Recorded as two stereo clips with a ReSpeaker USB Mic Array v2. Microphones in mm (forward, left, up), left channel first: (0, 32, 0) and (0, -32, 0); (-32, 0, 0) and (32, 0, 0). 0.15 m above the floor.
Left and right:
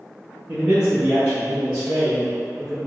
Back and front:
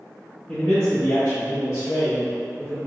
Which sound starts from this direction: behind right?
A man speaking, at 0.5 s.